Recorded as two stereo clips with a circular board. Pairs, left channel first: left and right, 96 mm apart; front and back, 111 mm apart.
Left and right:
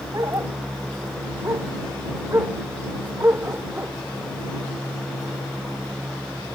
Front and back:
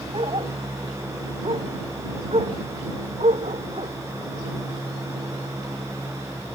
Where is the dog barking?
145° right; by 3.9 s 160° right.